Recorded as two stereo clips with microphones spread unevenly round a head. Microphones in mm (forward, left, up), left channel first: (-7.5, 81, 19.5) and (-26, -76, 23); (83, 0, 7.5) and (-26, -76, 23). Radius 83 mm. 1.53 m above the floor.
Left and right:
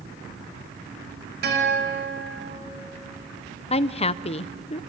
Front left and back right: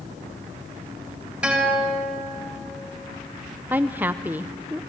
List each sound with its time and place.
1.4 s a guitar: 65° right, 4.5 m
3.7 s a woman speaking: 135° left, 0.7 m